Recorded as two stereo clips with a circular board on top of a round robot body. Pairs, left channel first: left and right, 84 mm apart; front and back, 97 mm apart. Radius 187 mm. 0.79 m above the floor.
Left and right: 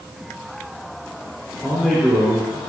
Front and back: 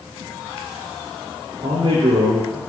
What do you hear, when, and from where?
1.6 s a man speaking: 175° right, 3 m